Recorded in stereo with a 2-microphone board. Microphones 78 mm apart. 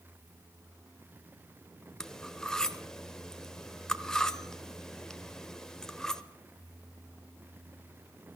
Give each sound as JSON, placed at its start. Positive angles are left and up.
{"t": 2.0, "sound": "cutlery clinking", "side_deg": 10, "distance_m": 0.9}